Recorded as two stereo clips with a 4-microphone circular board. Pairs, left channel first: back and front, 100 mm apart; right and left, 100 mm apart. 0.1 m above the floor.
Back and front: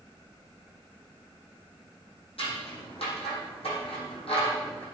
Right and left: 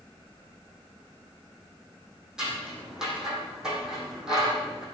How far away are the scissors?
About 4.5 m.